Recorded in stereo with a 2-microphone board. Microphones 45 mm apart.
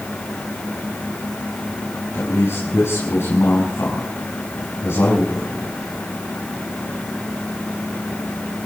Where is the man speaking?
65° left (ahead or behind), 5 m.